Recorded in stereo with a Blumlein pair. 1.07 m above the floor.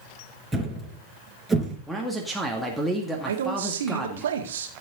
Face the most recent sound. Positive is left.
turn(degrees=-60)